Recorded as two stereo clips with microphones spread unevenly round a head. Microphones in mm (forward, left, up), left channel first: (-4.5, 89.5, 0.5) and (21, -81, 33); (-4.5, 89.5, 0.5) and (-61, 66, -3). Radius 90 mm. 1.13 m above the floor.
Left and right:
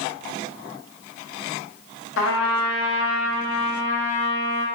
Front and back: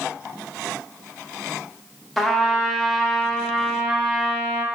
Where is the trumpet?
110° left, 0.8 m.